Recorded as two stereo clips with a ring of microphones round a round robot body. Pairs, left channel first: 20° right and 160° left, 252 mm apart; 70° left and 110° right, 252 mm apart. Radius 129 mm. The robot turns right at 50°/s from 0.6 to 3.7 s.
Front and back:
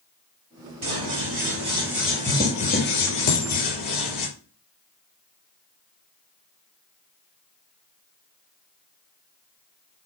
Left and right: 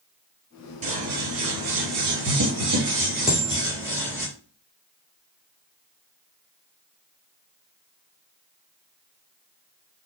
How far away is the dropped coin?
About 1.5 m.